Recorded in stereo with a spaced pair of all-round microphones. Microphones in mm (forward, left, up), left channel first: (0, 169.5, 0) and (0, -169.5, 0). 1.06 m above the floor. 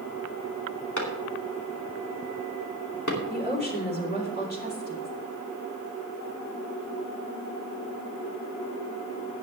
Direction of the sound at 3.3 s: 30° left (ahead or behind).